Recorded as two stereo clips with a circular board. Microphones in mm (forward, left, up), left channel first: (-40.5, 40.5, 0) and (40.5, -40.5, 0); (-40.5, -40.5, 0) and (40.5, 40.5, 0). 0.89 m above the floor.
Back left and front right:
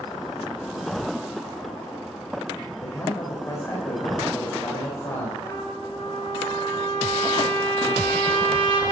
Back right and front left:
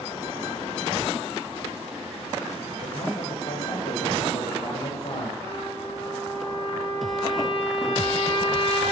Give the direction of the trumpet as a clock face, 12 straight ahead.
5 o'clock.